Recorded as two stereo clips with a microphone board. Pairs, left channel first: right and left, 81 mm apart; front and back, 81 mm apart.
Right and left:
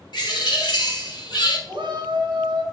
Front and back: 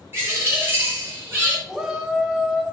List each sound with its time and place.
0.1 s a bird: 120° right, 0.9 m
1.7 s a shout: 95° left, 0.8 m